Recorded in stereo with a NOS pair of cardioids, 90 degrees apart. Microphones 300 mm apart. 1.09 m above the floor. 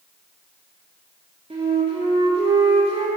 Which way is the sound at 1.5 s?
20° right.